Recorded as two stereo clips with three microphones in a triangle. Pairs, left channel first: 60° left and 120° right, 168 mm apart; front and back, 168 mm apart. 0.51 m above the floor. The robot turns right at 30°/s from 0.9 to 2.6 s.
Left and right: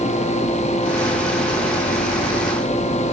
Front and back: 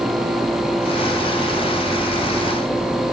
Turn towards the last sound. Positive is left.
No sound to turn to.